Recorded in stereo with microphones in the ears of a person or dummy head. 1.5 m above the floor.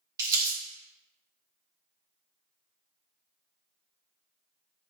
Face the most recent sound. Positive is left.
turn(degrees=-20)  # may be behind; listen again after turning